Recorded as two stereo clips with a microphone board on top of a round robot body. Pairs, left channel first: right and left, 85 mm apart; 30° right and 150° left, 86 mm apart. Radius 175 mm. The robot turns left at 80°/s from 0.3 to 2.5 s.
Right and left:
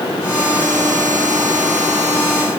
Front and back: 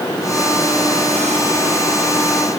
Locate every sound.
Only background noise.